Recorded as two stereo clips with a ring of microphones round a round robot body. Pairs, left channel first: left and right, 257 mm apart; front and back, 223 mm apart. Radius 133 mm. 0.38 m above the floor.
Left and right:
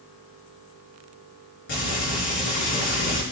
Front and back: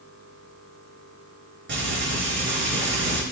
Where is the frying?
140° left, 4.5 m.